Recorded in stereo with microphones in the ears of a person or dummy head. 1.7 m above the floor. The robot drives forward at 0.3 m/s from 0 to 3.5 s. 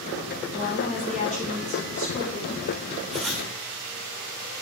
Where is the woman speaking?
35° left (ahead or behind), 2.5 m; by 2.6 s 30° left (ahead or behind), 3 m.